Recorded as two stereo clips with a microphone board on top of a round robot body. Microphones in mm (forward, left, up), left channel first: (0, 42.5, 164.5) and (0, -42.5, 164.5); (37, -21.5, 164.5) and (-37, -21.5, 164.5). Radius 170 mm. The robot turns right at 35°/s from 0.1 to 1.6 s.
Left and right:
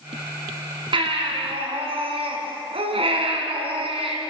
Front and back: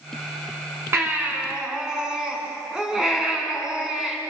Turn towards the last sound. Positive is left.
turn(degrees=-100)